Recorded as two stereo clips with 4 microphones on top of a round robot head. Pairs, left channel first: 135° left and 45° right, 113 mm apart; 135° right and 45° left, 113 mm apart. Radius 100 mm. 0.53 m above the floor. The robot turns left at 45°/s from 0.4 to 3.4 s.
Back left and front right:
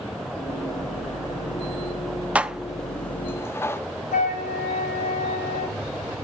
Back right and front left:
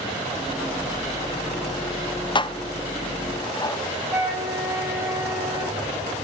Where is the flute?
125° left, 1.7 m.